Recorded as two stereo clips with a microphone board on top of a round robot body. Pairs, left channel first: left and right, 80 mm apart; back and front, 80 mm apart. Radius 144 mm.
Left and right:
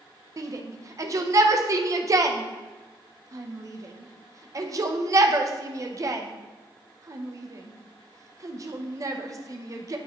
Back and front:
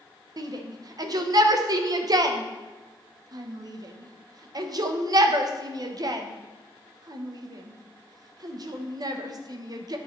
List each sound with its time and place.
0.4 s a shout: 40° right, 0.9 m